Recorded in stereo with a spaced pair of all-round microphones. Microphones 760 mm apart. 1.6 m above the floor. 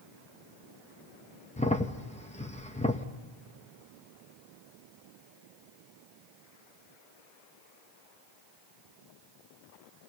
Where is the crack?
10° left (ahead or behind), 0.9 m.